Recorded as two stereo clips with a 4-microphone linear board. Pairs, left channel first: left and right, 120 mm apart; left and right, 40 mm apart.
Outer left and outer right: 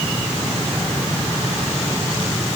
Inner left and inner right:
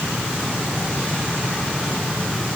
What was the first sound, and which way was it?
Only background noise.